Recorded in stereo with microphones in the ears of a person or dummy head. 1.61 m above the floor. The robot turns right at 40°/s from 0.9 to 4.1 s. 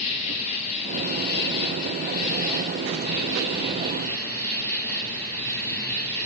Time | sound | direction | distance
0.0 | an insect | 35° left | 1.0 m